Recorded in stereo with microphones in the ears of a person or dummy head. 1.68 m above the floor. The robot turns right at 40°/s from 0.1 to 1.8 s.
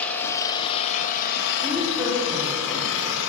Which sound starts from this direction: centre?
A woman speaking, at 1.6 s.